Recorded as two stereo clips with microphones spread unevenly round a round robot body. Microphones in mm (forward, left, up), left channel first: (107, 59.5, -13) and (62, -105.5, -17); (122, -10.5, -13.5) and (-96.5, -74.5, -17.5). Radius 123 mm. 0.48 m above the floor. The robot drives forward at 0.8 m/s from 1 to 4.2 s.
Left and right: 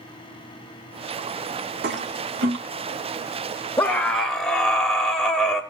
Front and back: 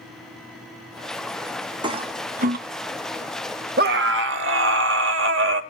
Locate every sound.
1.8 s a toilet flushing: 95° right, 1.4 m; by 2.6 s 115° right, 1.5 m
3.8 s a scream: 155° left, 1.1 m; by 5.6 s 160° left, 1.3 m